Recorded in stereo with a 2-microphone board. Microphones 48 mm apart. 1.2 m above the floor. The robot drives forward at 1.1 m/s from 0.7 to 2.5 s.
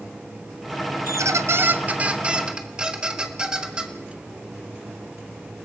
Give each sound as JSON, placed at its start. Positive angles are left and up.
{"t": 1.1, "sound": "a squeak", "side_deg": -70, "distance_m": 0.6}